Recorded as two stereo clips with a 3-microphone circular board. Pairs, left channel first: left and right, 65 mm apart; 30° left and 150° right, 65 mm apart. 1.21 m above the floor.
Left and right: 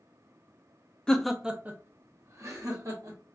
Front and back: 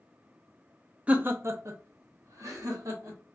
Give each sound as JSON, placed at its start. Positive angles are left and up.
{"t": 1.1, "sound": "laughter", "azimuth_deg": 155, "distance_m": 0.5}